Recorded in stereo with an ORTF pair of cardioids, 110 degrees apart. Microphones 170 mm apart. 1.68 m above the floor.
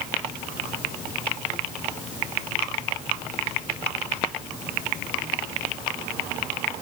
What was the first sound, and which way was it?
Only background noise.